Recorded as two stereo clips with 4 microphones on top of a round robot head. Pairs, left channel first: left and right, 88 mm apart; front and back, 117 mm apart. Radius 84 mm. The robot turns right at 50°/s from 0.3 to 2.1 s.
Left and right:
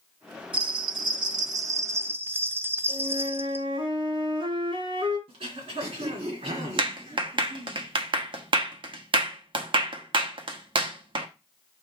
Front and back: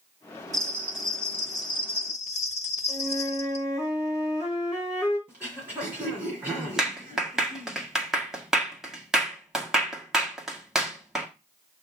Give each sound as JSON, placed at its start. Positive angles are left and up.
{"t": 0.5, "sound": "a bell", "azimuth_deg": -115, "distance_m": 0.6}
{"t": 2.9, "sound": "a flute", "azimuth_deg": -95, "distance_m": 5.0}
{"t": 5.3, "sound": "throat clearing", "azimuth_deg": -100, "distance_m": 2.5}
{"t": 6.8, "sound": "a clap", "azimuth_deg": -95, "distance_m": 1.3}